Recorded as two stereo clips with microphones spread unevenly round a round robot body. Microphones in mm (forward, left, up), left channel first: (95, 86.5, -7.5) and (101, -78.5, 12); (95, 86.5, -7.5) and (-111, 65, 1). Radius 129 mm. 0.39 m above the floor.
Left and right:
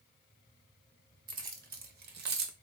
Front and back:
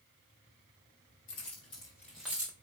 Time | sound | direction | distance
1.3 | keys jangling | 55° right | 1.3 m